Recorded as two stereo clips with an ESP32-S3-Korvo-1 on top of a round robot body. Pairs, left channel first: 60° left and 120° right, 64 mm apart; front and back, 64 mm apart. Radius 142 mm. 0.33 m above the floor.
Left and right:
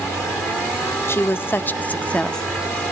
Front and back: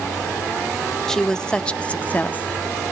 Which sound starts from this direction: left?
A woman speaking, at 1.1 s.